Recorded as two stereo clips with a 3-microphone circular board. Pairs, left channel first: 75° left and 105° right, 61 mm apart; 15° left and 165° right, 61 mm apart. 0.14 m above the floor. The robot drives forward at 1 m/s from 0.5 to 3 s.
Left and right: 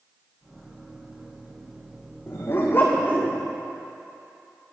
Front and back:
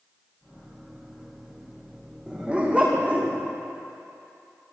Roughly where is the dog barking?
Behind left.